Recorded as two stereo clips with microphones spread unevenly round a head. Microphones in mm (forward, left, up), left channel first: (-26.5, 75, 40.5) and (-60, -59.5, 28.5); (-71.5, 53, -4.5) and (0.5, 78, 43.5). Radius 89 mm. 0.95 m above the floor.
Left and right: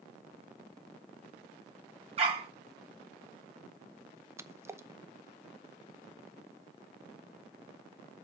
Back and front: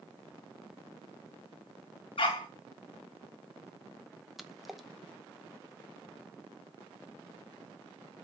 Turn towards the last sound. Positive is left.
turn(degrees=-150)